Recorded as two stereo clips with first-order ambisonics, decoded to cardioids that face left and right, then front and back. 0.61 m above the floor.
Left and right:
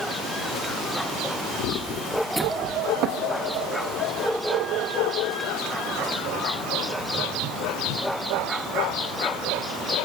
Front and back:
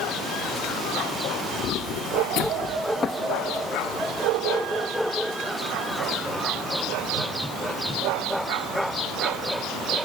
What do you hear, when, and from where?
1.6 s footsteps: 50° left, 1.4 m; by 3.6 s 90° right, 1.9 m